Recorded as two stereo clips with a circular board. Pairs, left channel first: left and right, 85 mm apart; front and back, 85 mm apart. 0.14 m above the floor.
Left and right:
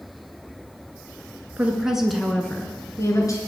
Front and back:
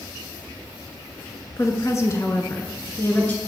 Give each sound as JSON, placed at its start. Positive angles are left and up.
{"t": 1.6, "sound": "a woman speaking", "azimuth_deg": -25, "distance_m": 2.0}